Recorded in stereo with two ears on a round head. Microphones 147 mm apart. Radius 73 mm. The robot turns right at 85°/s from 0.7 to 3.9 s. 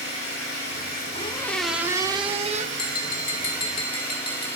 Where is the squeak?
135° left, 0.7 m; by 2.7 s 95° right, 0.7 m.